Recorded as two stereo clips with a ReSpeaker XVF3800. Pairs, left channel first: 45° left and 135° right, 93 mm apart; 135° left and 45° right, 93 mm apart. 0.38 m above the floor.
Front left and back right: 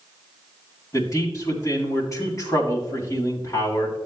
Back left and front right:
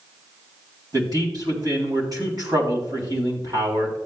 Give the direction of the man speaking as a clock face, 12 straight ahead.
12 o'clock.